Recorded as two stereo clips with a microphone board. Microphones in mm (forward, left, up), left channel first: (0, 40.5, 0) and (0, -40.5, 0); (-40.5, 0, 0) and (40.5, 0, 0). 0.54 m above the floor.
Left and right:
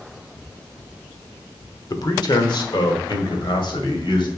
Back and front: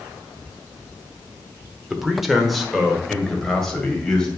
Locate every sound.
1.9 s a man speaking: 80° left, 1.1 m; by 4.3 s 95° left, 2.5 m